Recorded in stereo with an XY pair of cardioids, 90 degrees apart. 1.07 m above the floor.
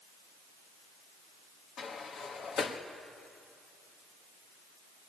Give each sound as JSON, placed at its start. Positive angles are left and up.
{"t": 1.8, "sound": "a sliding door", "azimuth_deg": 65, "distance_m": 1.5}